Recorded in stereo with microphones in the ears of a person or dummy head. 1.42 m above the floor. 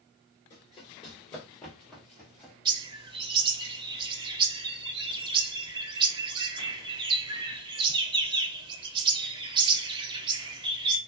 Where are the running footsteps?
25° left (ahead or behind), 1.5 m; by 2.5 s 5° left (ahead or behind), 1.8 m.